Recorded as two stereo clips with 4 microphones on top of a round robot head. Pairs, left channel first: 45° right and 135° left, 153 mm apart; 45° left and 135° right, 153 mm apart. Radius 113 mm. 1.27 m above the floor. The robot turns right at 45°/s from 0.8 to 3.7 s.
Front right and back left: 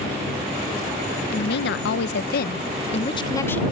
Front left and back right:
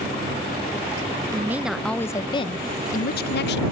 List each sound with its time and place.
1.3 s a woman speaking: 65° right; by 3.6 s 40° left